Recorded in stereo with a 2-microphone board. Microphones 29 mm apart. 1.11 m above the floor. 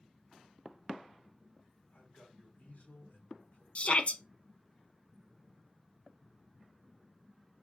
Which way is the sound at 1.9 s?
90° left.